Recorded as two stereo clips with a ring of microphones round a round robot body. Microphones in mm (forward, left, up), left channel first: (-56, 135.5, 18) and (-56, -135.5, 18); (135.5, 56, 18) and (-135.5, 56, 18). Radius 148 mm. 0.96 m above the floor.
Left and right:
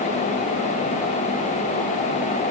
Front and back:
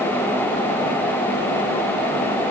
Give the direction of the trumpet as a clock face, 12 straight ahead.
No trumpet in this recording.